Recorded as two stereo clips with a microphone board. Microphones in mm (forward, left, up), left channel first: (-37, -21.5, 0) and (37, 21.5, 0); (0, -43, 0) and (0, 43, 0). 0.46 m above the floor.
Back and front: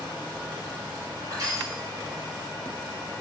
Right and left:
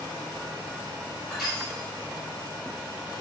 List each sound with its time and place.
1.3 s crushing: straight ahead, 1.8 m